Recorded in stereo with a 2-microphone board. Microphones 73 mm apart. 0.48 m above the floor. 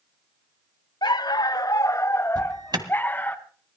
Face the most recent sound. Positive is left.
turn(degrees=-80)